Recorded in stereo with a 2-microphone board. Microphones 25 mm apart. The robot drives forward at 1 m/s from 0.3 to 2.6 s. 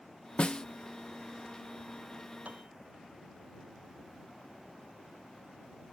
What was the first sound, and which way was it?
A snare drum, 45° left (ahead or behind).